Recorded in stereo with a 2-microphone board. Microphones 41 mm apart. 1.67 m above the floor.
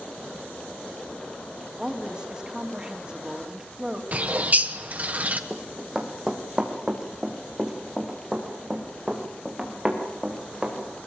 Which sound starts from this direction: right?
A bird, at 4.1 s.